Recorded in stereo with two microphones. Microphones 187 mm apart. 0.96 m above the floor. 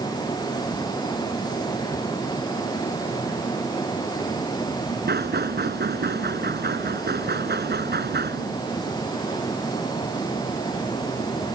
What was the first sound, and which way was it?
Knocking, 60° right (ahead or behind).